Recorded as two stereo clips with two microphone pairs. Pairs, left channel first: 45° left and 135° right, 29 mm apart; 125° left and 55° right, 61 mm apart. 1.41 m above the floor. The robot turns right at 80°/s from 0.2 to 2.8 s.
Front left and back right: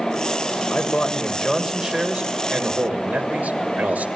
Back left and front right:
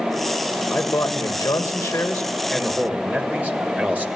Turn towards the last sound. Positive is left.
turn(degrees=-115)